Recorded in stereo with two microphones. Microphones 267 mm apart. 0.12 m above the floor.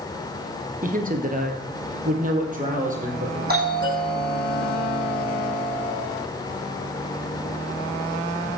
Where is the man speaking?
30° right (ahead or behind), 1.8 m.